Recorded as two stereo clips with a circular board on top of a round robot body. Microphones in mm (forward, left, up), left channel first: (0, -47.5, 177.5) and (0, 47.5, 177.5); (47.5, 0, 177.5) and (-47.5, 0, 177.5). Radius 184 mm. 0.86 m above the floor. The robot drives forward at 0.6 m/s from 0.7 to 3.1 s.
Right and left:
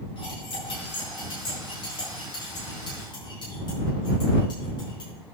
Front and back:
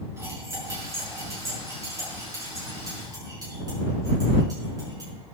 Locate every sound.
0.2 s cutlery clinking: 120° right, 5.5 m; by 5.1 s 130° right, 6.5 m